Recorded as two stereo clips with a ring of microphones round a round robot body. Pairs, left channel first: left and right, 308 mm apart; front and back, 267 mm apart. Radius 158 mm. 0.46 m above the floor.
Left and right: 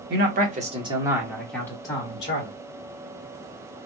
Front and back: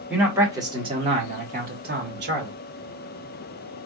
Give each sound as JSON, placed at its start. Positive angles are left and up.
{"t": 0.1, "sound": "a man speaking", "azimuth_deg": -95, "distance_m": 1.4}